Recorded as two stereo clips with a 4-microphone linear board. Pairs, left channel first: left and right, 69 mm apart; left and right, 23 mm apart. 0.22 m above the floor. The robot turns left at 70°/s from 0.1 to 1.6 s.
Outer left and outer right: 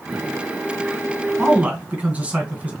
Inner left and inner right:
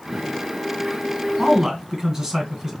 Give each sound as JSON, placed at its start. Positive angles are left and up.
{"t": 1.4, "sound": "a man speaking", "side_deg": -15, "distance_m": 2.0}